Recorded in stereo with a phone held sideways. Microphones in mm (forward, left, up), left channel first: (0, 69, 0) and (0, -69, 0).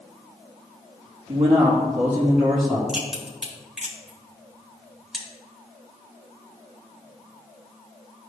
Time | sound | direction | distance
1.3 | a man speaking | 40° right (ahead or behind) | 1.6 m
2.9 | a crack | 5° right (ahead or behind) | 2 m